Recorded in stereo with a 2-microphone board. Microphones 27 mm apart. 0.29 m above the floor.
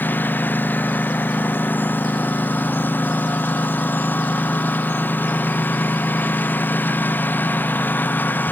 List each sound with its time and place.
0.0 s a lawn mower: 80° left